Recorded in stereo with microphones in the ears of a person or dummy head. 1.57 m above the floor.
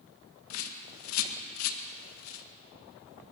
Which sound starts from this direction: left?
A bird, at 0.5 s.